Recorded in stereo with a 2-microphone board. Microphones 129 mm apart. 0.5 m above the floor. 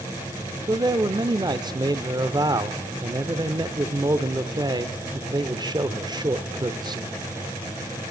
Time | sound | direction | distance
0.7 | a man speaking | 35° right (ahead or behind) | 1.1 m